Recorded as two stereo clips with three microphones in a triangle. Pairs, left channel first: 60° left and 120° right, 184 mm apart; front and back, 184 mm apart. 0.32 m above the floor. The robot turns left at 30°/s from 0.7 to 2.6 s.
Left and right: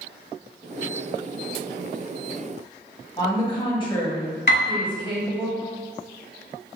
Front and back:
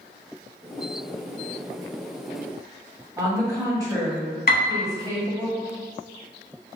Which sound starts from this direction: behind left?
A woman speaking, at 3.2 s.